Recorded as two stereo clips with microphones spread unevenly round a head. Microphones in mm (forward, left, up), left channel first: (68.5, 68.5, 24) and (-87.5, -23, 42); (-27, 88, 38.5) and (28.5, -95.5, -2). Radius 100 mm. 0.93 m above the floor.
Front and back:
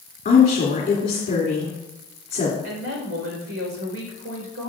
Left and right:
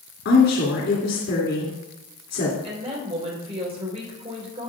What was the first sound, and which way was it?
A woman speaking, 75° left.